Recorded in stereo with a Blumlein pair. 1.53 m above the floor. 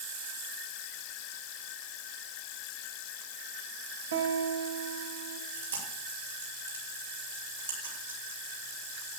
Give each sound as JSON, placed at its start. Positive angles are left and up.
{"t": 4.1, "sound": "a guitar", "azimuth_deg": -65, "distance_m": 2.5}
{"t": 5.5, "sound": "chewing", "azimuth_deg": -70, "distance_m": 5.5}